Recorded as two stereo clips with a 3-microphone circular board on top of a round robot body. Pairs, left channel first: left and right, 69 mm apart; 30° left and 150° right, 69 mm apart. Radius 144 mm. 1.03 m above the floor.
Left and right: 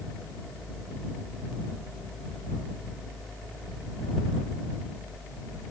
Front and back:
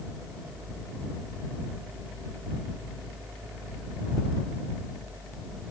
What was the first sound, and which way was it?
Only background noise.